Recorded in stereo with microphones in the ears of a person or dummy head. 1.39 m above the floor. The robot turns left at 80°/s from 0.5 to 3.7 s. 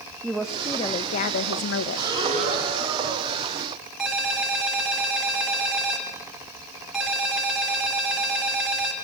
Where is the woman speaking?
Straight behind, 0.7 m; by 2.1 s 50° left, 0.7 m.